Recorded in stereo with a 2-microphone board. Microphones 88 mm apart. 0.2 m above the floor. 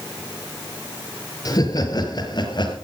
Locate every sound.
1.4 s laughter: 45° left (ahead or behind), 4 m; by 2.8 s 55° left (ahead or behind), 4 m